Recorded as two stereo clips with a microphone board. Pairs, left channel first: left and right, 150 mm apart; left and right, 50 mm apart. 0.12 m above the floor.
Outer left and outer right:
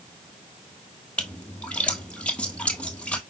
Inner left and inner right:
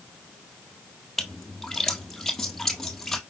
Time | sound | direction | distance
1.2 | a splash | 10° left (ahead or behind) | 1.4 m